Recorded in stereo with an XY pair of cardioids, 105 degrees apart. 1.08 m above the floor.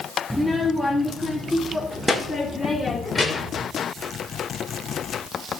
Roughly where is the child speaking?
Ahead.